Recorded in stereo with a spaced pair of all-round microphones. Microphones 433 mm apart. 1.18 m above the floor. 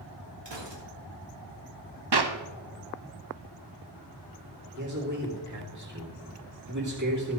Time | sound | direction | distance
0.5 | a gunshot | 75° right (ahead or behind) | 1.8 m
2.1 | a clap | 65° right (ahead or behind) | 0.8 m
4.8 | a man speaking | 40° right (ahead or behind) | 2.5 m